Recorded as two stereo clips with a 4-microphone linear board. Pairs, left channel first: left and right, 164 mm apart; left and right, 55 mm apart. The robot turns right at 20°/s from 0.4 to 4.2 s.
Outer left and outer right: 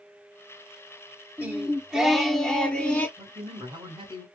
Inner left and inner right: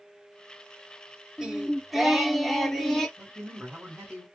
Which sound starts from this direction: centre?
A man speaking, at 3.2 s.